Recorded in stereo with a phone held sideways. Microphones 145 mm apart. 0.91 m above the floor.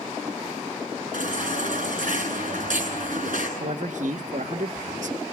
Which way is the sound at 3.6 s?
70° right (ahead or behind).